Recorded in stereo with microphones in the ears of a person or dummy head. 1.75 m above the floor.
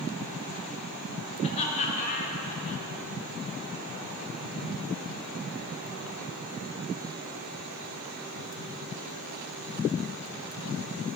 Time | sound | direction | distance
1.4 | laughter | 35° left (ahead or behind) | 3.5 m